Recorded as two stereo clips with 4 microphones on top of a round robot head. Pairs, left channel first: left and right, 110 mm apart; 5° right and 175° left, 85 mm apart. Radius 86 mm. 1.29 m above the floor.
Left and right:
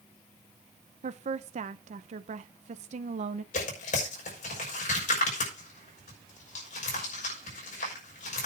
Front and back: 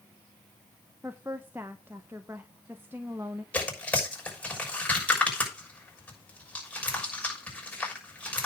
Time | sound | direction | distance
1.0 | a woman speaking | 110° right | 0.7 m
3.5 | tearing paper | 70° left | 6.5 m